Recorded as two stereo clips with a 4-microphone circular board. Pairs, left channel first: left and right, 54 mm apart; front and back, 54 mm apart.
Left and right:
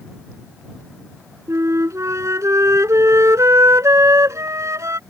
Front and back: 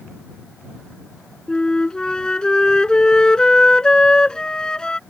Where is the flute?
75° right.